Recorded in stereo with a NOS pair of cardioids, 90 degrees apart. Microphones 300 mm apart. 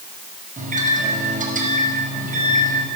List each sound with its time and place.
0.6 s a microwave: 25° right, 5.5 m